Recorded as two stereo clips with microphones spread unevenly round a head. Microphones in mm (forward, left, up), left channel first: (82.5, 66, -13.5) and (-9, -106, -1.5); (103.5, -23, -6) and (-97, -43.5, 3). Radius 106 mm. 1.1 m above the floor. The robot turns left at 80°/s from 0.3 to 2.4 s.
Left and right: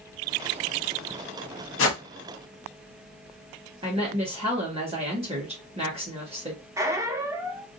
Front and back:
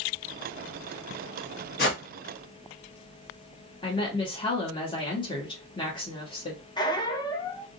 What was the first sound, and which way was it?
A whoosh, 50° left.